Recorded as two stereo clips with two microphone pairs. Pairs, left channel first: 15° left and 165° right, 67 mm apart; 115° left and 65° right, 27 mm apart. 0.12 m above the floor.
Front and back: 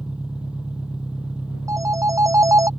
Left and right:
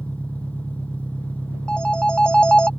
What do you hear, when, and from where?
0.0 s an engine running: 120° left
1.7 s a phone ringing: 165° left